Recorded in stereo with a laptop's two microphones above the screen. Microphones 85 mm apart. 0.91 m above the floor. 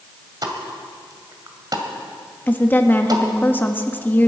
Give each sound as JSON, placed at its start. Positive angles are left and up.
{"t": 0.4, "sound": "a pop", "side_deg": -55, "distance_m": 1.9}
{"t": 2.5, "sound": "a woman speaking", "side_deg": 20, "distance_m": 1.4}